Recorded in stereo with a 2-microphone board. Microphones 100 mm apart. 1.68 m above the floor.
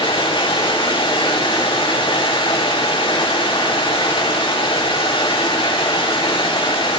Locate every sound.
0.0 s running water: 55° left (ahead or behind), 5.5 m